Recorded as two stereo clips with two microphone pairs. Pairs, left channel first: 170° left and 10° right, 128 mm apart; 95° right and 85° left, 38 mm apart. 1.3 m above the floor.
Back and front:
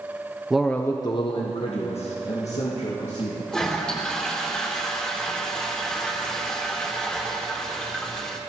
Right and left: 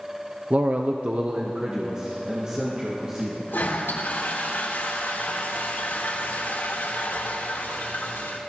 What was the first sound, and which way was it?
A man speaking, 70° left.